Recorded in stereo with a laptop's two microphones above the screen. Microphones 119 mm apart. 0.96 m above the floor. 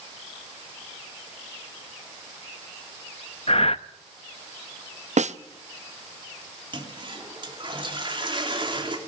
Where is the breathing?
55° left (ahead or behind), 0.5 m.